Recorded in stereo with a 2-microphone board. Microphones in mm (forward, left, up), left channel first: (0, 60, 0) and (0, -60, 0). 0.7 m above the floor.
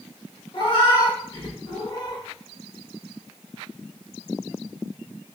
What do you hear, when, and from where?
0.5 s a cat meowing: 40° left (ahead or behind), 0.8 m